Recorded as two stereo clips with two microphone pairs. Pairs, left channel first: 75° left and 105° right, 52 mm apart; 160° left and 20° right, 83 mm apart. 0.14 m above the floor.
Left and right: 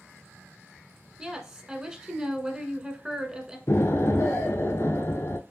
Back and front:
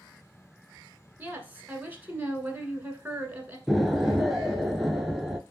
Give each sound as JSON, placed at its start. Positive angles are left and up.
{"t": 1.2, "sound": "a woman speaking", "azimuth_deg": -55, "distance_m": 1.1}
{"t": 3.7, "sound": "an explosion", "azimuth_deg": 65, "distance_m": 0.5}